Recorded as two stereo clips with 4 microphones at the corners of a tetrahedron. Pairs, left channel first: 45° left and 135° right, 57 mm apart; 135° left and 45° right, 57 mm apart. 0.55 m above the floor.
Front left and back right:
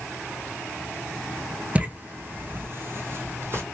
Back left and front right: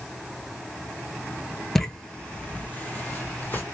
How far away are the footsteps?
About 0.5 m.